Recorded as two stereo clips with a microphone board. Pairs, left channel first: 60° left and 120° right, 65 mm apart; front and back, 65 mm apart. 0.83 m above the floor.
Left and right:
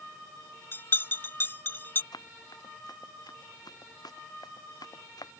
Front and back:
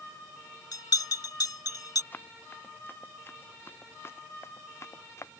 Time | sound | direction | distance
0.7 | a bell | 5° left | ?
2.1 | running footsteps | 60° left | ?